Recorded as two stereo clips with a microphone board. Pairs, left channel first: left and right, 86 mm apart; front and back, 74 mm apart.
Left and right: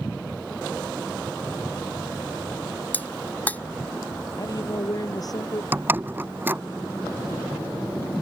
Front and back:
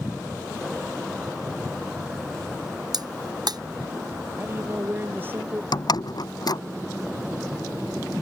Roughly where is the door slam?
Ahead right.